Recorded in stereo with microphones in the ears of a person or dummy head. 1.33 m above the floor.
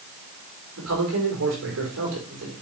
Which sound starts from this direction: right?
A man speaking, at 0.8 s.